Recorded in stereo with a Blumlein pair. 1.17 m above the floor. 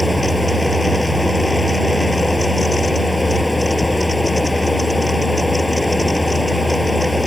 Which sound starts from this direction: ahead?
A fan, at 0.0 s.